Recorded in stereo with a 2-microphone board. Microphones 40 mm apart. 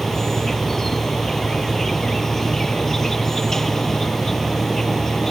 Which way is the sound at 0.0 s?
10° left (ahead or behind).